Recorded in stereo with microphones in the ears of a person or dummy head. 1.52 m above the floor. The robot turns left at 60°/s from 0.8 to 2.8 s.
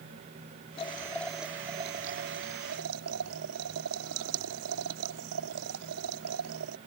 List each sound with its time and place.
0.8 s boiling: 35° left; by 6.8 s 85° right